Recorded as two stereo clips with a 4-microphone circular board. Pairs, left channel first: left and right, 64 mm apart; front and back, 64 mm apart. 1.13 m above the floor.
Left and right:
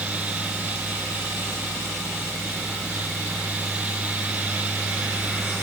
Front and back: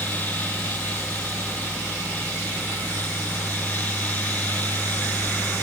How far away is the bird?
No bird in this recording.